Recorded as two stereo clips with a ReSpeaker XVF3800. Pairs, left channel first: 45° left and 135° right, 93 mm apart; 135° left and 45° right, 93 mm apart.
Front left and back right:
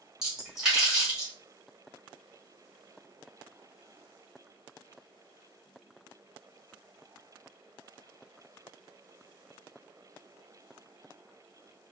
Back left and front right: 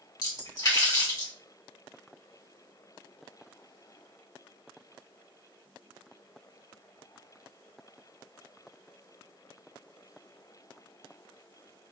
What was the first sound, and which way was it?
A splash, 145° left.